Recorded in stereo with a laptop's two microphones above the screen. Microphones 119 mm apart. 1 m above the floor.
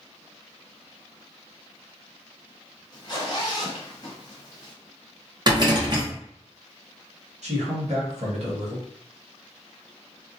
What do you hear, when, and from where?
2.9 s a zipper: 35° left (ahead or behind), 1.1 m
5.5 s a rattle: 40° right (ahead or behind), 0.8 m
7.4 s a man speaking: 70° right (ahead or behind), 1.1 m